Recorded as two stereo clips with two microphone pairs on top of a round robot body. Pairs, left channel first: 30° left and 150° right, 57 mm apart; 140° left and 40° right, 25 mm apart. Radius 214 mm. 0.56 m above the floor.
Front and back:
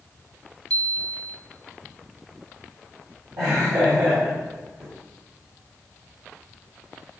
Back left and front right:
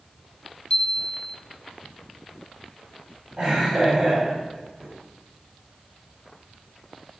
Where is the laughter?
130° right, 5.5 m.